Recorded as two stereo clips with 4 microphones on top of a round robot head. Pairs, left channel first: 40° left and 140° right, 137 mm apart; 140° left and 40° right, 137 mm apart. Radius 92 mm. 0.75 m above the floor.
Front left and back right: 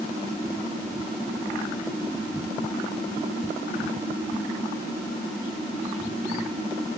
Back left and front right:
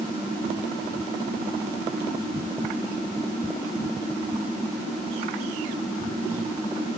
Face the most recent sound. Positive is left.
No sound to turn to.